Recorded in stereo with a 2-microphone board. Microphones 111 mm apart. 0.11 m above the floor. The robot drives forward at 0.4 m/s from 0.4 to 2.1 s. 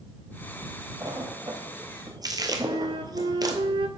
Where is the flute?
55° right (ahead or behind), 0.6 m.